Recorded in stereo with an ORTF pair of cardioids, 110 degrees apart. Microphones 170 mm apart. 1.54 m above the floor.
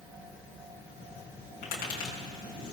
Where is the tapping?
65° left, 6.5 m.